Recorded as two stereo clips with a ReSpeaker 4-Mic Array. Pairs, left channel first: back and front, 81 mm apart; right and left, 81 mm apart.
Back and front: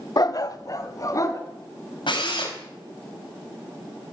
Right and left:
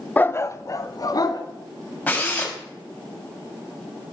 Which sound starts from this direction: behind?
A drill, at 2.1 s.